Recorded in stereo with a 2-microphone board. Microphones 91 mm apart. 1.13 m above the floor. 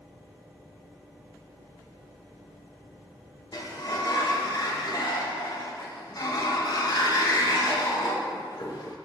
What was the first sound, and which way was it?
A sliding door, 50° left (ahead or behind).